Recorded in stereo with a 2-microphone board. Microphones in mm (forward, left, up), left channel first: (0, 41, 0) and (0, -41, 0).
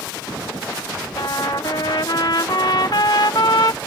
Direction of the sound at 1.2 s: 60° left (ahead or behind).